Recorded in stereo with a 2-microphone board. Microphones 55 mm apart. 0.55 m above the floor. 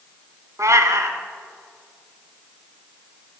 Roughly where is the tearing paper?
I don't hear tearing paper.